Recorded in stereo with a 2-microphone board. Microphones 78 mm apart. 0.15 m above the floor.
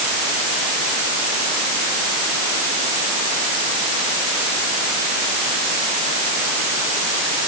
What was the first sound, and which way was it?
Only background noise.